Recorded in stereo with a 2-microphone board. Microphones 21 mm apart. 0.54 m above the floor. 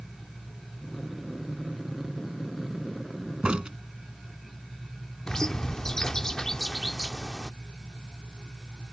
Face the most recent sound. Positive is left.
turn(degrees=25)  # may be behind; listen again after turning